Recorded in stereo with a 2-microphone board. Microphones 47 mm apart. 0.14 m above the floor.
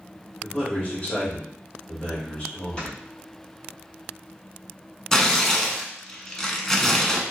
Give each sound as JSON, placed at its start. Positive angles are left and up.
{"t": 0.4, "sound": "a man speaking", "side_deg": 30, "distance_m": 1.7}
{"t": 2.8, "sound": "snoring", "side_deg": 15, "distance_m": 1.2}
{"t": 5.1, "sound": "tearing paper", "side_deg": 10, "distance_m": 0.6}